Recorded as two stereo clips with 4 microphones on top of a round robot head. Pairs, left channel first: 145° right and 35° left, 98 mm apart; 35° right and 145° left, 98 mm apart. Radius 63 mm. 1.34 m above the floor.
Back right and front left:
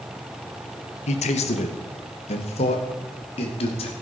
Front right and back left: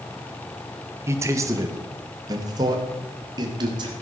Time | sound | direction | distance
1.1 | a man speaking | 150° right | 1.3 m